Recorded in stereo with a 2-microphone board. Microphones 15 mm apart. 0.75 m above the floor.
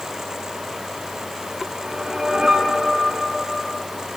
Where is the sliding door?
I don't hear a sliding door.